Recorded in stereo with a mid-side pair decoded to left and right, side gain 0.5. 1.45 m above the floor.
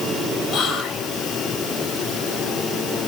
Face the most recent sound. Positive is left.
turn(degrees=65)